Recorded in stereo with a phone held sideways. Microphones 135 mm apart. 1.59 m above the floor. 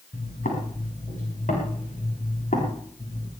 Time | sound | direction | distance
0.1 | footsteps | 75° left (ahead or behind) | 7 m